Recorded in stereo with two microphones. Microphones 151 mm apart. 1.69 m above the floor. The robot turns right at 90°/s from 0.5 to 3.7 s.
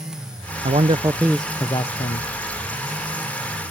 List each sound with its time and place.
0.6 s a man speaking: 65° right; by 2.3 s 80° left